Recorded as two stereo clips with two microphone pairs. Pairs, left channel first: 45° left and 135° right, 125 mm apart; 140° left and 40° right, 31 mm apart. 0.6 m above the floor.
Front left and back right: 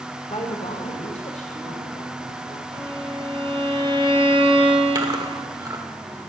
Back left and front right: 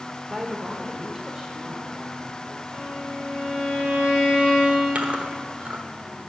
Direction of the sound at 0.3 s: 35° left.